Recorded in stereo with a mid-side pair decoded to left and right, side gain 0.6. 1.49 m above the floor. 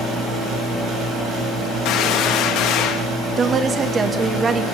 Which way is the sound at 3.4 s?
30° right.